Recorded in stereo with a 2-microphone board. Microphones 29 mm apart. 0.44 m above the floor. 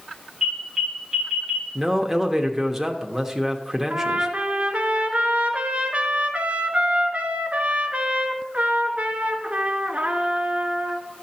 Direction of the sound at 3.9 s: 55° right (ahead or behind).